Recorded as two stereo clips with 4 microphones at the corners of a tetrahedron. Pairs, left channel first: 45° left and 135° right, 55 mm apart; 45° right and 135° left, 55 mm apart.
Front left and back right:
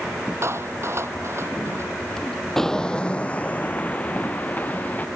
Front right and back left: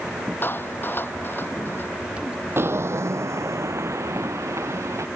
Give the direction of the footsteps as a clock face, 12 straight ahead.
8 o'clock.